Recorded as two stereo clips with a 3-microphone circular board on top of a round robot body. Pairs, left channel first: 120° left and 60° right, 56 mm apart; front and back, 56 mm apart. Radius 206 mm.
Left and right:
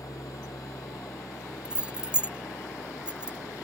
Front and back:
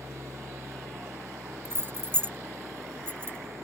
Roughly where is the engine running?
Behind left.